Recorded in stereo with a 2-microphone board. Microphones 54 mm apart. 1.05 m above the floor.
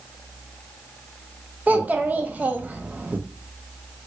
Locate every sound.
1.7 s a child speaking: 30° right (ahead or behind), 0.6 m